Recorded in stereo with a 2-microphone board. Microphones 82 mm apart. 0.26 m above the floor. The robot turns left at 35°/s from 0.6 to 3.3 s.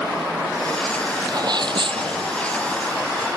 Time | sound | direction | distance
1.3 | a sneeze | 50° right | ?